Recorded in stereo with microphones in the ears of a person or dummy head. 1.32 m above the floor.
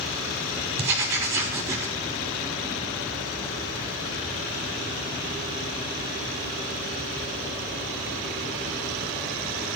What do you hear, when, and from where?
0.8 s writing: 15° right (ahead or behind), 1.4 m